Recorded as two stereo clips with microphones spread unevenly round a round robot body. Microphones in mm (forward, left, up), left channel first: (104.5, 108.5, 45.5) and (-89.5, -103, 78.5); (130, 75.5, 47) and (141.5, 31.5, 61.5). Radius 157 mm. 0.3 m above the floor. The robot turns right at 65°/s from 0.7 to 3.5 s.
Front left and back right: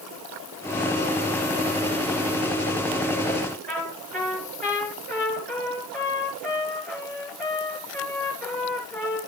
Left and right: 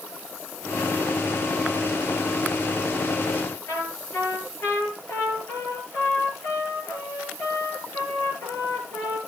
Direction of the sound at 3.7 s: 135° left.